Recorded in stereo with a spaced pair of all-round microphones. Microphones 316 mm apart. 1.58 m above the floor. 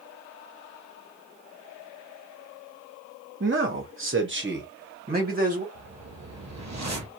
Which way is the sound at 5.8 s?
55° right (ahead or behind).